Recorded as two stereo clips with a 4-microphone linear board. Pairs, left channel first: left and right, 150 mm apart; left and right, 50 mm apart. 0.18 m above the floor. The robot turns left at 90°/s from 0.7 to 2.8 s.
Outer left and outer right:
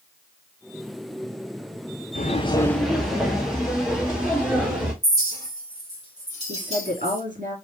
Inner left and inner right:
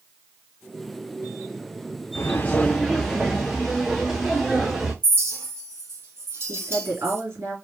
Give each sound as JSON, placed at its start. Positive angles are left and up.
{"t": 2.1, "sound": "footsteps", "side_deg": 60, "distance_m": 0.8}
{"t": 5.0, "sound": "a clink", "side_deg": -50, "distance_m": 2.5}
{"t": 6.5, "sound": "a woman speaking", "side_deg": -60, "distance_m": 3.0}